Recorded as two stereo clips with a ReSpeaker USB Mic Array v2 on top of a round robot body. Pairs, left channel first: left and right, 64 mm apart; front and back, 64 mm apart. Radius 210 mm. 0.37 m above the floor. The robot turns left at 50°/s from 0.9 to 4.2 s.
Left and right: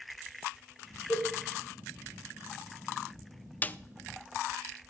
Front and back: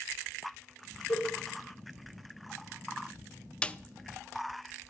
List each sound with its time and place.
1.1 s a cowbell: 40° left, 2.5 m; by 1.3 s 30° left, 2.5 m
3.6 s a snare drum: 60° left, 0.5 m; by 3.8 s 50° left, 0.5 m